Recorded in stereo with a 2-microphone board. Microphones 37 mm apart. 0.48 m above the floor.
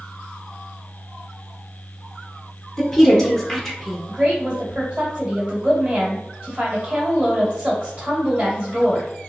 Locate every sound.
2.8 s a woman speaking: 10° left (ahead or behind), 1.0 m
4.1 s a woman speaking: 40° right (ahead or behind), 1.9 m